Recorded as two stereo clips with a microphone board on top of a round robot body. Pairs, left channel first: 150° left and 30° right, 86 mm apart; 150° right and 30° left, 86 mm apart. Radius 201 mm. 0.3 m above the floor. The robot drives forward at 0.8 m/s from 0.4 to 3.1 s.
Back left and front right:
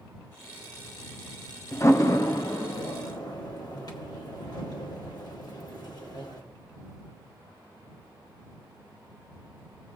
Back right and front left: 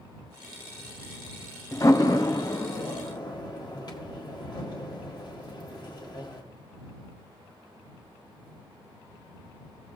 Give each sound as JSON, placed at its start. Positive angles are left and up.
{"t": 1.7, "sound": "a door slam", "azimuth_deg": -170, "distance_m": 1.0}